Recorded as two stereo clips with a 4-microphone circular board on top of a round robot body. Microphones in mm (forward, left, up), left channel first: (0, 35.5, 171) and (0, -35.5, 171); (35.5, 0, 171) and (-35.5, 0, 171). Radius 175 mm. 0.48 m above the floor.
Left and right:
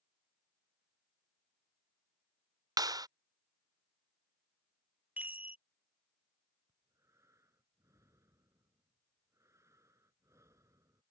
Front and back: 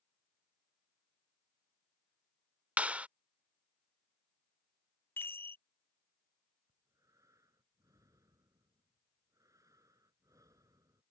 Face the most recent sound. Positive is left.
turn(degrees=-140)